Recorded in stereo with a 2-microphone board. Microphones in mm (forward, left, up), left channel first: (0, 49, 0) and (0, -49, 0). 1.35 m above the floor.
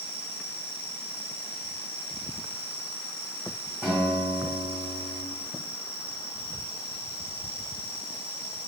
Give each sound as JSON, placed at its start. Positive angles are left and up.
{"t": 0.0, "sound": "an insect", "side_deg": -25, "distance_m": 1.7}
{"t": 3.8, "sound": "a guitar", "side_deg": -5, "distance_m": 1.5}